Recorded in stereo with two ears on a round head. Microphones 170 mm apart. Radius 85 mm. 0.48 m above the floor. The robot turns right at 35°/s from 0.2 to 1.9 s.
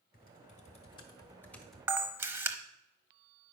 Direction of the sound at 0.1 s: 50° left (ahead or behind).